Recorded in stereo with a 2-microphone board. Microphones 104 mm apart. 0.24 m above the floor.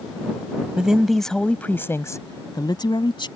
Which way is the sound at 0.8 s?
10° right (ahead or behind).